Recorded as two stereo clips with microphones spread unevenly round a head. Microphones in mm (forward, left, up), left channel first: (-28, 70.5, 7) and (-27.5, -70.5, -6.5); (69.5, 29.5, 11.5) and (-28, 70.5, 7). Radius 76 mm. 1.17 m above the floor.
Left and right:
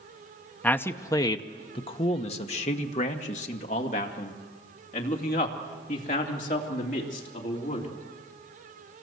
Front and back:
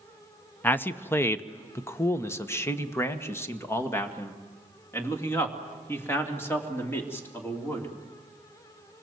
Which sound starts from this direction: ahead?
A man speaking, at 0.6 s.